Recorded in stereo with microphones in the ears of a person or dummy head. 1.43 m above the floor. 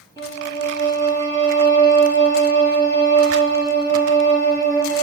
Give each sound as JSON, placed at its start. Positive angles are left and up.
{"t": 0.2, "sound": "a violin", "side_deg": 25, "distance_m": 3.0}